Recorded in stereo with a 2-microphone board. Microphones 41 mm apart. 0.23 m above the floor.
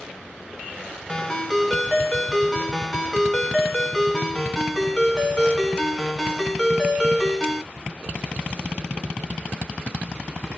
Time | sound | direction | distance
1.1 | a ringtone | 20° left (ahead or behind) | 1.1 m